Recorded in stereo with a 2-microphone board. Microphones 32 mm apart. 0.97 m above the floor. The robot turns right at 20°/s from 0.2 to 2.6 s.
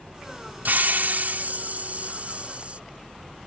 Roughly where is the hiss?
Right.